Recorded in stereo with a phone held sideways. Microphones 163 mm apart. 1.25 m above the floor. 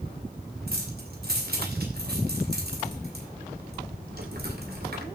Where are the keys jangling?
75° right (ahead or behind), 2.5 m.